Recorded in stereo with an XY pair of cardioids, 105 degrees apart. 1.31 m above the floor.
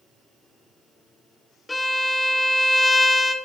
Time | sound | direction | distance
1.7 | a violin | 20° left | 0.7 m